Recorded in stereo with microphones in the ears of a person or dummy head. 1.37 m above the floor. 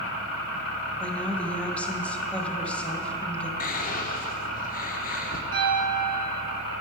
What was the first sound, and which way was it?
A woman speaking, 5° left (ahead or behind).